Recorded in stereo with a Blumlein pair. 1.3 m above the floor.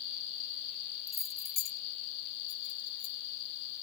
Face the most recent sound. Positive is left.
turn(degrees=50)